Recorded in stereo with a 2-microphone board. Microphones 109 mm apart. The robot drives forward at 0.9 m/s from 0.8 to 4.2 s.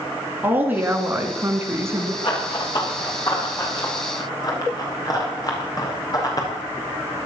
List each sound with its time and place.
0.4 s a woman speaking: 20° right (ahead or behind), 2.5 m; by 2.1 s 25° right (ahead or behind), 1.8 m
2.2 s running footsteps: 45° left (ahead or behind), 6.5 m; by 7.3 s 35° left (ahead or behind), 5 m